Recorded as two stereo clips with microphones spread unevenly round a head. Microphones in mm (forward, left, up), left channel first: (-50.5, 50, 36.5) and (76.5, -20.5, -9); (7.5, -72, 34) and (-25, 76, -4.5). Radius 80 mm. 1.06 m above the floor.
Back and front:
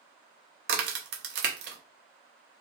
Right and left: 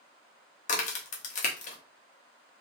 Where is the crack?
60° right, 0.7 m.